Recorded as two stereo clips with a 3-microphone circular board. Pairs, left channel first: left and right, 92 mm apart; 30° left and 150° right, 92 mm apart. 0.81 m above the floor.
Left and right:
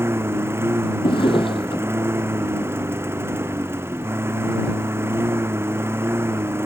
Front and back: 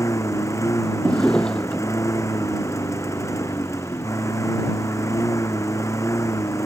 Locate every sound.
0.0 s a lawn mower: 25° right
1.0 s a drawer: 110° left